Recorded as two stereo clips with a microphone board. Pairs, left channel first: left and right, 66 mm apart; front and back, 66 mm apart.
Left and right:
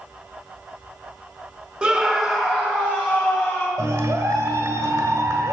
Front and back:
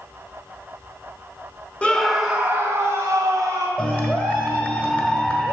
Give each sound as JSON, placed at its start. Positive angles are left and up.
{"t": 1.8, "sound": "a scream", "azimuth_deg": -35, "distance_m": 0.8}
{"t": 3.8, "sound": "a clap", "azimuth_deg": -65, "distance_m": 1.3}